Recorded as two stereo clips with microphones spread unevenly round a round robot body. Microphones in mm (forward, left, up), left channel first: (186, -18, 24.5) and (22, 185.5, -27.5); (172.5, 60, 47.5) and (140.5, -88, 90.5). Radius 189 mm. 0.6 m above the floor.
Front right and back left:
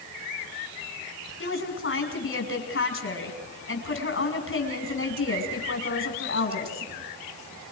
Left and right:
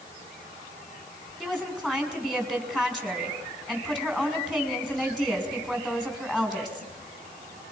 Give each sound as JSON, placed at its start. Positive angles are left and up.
{"t": 1.4, "sound": "a woman speaking", "azimuth_deg": -5, "distance_m": 5.5}